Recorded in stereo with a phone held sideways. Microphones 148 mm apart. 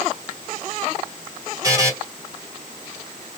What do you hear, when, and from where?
1.6 s a buzzer: 25° right (ahead or behind), 2.5 m